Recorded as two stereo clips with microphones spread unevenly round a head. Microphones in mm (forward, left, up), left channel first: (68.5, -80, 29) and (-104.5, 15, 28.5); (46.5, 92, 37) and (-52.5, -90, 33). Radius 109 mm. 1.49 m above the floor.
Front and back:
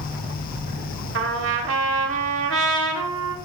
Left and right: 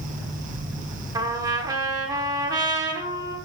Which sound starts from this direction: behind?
A trumpet, at 1.1 s.